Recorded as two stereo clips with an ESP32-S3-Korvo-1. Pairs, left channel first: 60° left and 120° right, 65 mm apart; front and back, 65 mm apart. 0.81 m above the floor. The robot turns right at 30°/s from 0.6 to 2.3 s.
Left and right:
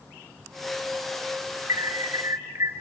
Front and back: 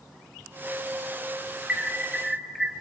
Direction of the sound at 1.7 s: 115° right.